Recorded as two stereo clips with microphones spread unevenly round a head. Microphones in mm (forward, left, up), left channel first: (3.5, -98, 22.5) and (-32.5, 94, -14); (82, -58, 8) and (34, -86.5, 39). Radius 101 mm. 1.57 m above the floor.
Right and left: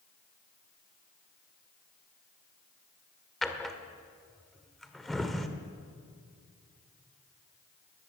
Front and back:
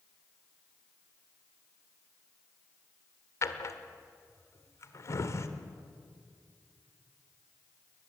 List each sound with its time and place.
3.4 s a drawer: 10° right, 1.3 m